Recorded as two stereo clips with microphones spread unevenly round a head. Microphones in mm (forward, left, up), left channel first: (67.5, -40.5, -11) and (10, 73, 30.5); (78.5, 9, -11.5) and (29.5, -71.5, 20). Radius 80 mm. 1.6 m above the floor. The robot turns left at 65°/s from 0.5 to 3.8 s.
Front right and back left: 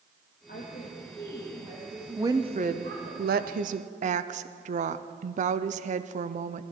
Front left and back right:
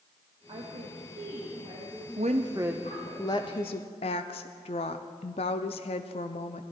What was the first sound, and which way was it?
A woman speaking, 100° right.